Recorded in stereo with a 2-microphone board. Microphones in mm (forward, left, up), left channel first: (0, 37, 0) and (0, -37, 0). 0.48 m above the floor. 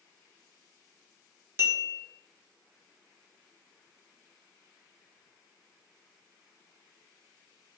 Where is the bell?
35° right (ahead or behind), 0.6 m.